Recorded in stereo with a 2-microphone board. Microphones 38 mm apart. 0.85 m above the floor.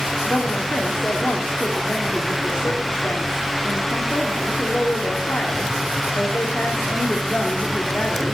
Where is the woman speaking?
55° left (ahead or behind), 1.8 m.